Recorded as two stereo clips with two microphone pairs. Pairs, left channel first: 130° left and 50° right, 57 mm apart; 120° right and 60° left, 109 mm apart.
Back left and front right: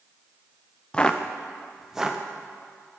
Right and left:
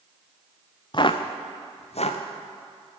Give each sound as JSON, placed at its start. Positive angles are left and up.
{"t": 0.9, "sound": "footsteps", "azimuth_deg": -160, "distance_m": 0.8}